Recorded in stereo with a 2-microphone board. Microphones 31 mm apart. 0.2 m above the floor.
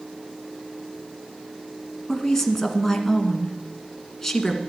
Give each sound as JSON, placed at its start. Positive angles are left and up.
{"t": 2.1, "sound": "a woman speaking", "side_deg": 10, "distance_m": 1.8}